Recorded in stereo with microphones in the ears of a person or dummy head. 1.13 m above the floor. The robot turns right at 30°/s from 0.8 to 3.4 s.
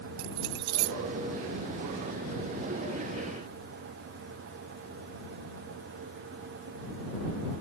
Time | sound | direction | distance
0.2 | keys jangling | 60° right (ahead or behind) | ?